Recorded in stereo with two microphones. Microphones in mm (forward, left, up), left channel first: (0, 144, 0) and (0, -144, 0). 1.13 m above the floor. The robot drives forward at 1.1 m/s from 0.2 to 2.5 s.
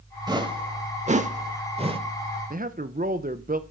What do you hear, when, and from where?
0.3 s a whoosh: 15° right (ahead or behind), 1.4 m
2.5 s a man speaking: 25° right (ahead or behind), 1.0 m